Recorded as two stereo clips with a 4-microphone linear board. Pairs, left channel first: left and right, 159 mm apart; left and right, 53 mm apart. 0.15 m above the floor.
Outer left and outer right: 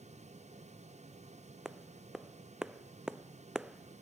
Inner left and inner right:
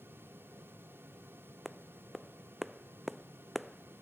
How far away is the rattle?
I don't hear a rattle.